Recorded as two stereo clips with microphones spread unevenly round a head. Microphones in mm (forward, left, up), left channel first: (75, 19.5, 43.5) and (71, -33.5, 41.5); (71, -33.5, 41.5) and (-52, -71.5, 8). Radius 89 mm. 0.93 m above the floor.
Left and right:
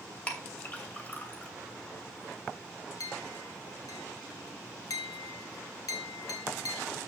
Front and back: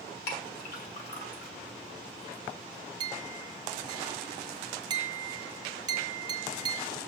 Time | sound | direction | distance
0.3 | a clink | 25° left | 2.5 m
3.0 | a clink | 130° left | 0.6 m